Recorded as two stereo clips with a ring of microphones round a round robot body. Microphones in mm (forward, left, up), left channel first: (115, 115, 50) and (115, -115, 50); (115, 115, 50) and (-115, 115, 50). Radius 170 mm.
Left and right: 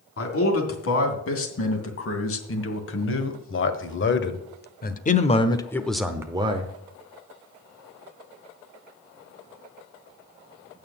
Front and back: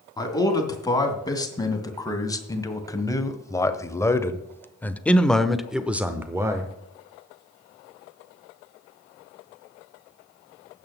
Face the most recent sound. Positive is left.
turn(degrees=-115)